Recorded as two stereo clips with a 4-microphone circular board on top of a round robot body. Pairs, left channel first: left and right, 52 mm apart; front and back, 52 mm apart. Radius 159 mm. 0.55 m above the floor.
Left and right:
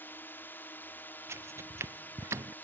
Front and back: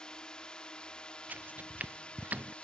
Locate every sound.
0.0 s a drone: 65° left; by 2.6 s 60° left
1.3 s footsteps: 125° right; by 2.5 s 120° right